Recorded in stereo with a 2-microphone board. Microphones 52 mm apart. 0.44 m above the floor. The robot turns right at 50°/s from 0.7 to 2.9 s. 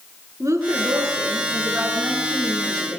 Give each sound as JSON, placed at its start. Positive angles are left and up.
{"t": 0.4, "sound": "a woman speaking", "azimuth_deg": -85, "distance_m": 5.5}